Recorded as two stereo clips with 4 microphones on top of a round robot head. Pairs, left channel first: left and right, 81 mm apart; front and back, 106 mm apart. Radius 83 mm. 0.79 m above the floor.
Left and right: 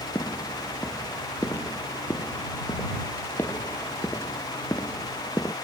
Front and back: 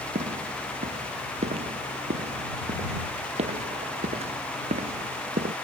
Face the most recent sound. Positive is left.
turn(degrees=160)